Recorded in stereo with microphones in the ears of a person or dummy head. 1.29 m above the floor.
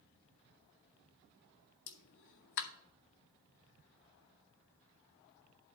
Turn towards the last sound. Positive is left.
turn(degrees=60)  # may be behind; listen again after turning